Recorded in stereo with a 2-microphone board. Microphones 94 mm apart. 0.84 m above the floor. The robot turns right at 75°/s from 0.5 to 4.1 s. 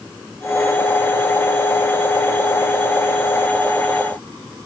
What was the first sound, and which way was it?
Only background noise.